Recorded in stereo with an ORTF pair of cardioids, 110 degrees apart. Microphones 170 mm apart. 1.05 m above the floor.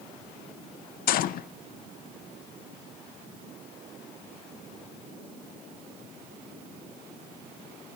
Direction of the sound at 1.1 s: 65° left.